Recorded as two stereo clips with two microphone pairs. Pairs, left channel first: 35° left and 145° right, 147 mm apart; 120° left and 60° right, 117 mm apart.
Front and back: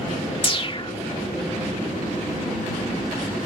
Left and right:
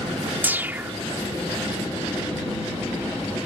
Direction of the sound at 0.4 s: 5° left.